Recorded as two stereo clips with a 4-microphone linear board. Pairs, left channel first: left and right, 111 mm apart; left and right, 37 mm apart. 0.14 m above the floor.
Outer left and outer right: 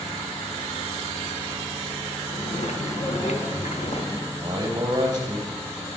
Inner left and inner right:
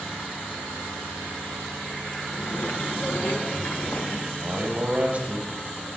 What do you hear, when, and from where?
2.3 s footsteps: 85° left, 1.9 m; by 4.2 s 60° left (ahead or behind), 2.5 m
4.3 s a man speaking: 35° right (ahead or behind), 3 m